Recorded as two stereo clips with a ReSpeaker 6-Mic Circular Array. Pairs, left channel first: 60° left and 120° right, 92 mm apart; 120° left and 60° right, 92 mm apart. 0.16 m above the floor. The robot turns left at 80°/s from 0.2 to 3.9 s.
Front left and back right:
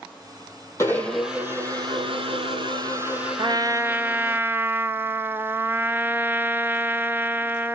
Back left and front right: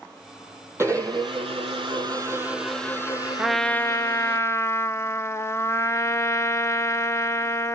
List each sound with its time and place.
0.8 s a blender: 5° left, 4 m; by 4.4 s 115° left, 4 m
3.4 s a trumpet: 140° right, 0.6 m; by 7.8 s 175° left, 0.6 m